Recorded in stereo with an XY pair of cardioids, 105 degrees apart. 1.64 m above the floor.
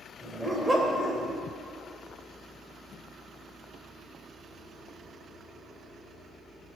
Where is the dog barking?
5° right, 3.5 m.